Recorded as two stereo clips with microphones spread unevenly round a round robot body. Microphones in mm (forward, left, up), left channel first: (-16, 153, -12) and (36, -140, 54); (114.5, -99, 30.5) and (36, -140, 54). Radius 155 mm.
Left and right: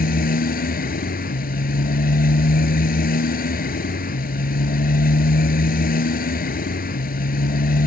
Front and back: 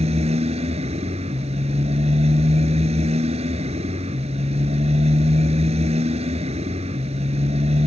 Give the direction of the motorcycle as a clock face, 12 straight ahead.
6 o'clock.